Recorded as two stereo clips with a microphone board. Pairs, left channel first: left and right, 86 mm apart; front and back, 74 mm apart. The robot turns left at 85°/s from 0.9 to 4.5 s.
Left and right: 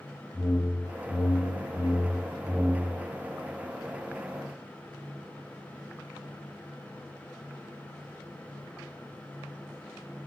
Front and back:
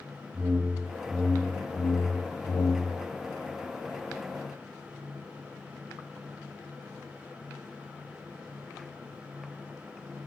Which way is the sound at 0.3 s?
130° left.